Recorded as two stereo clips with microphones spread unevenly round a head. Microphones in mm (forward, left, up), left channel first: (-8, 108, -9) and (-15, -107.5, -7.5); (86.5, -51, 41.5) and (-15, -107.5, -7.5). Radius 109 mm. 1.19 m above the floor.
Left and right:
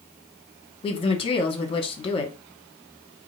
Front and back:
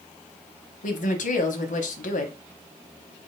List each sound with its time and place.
0.8 s a woman speaking: 25° left, 1.1 m